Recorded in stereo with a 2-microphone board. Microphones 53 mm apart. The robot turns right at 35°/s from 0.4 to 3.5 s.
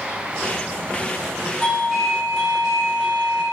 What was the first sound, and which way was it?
A doorbell, 155° left.